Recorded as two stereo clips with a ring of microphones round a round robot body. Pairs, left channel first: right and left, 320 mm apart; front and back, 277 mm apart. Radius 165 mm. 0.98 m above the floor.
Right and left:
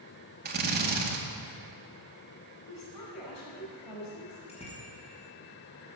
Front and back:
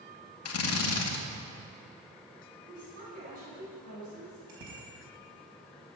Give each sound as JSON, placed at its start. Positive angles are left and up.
{"t": 0.5, "sound": "a drill", "azimuth_deg": 30, "distance_m": 2.0}
{"t": 2.6, "sound": "a woman speaking", "azimuth_deg": -115, "distance_m": 6.0}
{"t": 4.5, "sound": "a bicycle bell", "azimuth_deg": -160, "distance_m": 5.0}